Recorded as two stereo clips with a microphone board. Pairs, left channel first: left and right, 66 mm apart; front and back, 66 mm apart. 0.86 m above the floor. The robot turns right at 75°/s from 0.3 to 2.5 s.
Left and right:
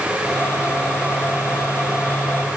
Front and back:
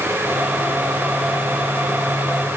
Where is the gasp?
No gasp in this recording.